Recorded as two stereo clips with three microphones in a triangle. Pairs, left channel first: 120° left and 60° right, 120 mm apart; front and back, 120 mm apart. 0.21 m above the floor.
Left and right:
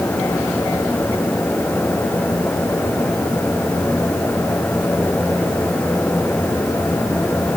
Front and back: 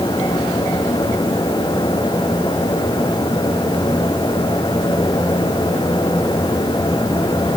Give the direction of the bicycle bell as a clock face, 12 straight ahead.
I don't hear a bicycle bell.